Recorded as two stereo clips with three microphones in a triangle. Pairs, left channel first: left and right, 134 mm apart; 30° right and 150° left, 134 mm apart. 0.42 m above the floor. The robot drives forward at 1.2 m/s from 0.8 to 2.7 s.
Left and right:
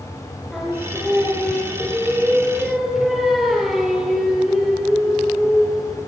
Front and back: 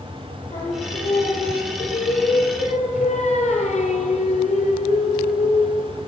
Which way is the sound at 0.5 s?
Straight ahead.